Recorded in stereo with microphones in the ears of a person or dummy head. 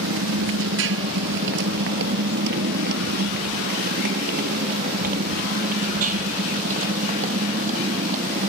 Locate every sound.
0.0 s a motorcycle: 80° right; by 8.5 s 40° right (ahead or behind)